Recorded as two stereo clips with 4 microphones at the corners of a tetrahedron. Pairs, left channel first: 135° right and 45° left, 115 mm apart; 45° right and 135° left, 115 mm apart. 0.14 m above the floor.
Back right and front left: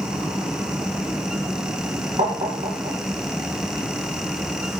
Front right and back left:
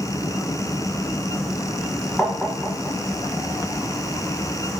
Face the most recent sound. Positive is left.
turn(degrees=45)